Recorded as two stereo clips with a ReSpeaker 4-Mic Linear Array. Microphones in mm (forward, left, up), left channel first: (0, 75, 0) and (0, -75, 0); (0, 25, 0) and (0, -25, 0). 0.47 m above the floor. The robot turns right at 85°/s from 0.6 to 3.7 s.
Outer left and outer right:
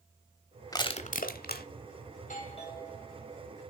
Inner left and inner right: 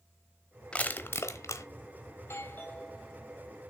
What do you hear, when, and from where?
0.7 s crushing: 25° left (ahead or behind), 1.0 m; by 1.7 s 75° left (ahead or behind), 1.0 m
2.2 s a doorbell: 100° left, 2.5 m; by 3.5 s 145° right, 2.5 m